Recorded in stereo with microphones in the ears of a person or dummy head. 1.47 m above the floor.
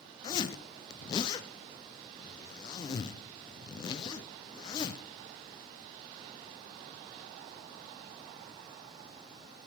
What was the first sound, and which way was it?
A zipper, 25° left (ahead or behind).